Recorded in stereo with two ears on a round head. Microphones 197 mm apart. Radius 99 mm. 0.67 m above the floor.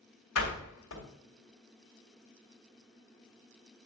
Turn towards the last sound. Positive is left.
turn(degrees=70)  # may be behind; listen again after turning